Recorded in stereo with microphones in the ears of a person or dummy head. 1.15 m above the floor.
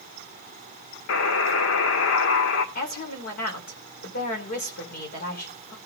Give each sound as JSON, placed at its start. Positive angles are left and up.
{"t": 1.1, "sound": "a buzzer", "side_deg": 70, "distance_m": 1.8}
{"t": 2.8, "sound": "a woman speaking", "side_deg": 50, "distance_m": 3.5}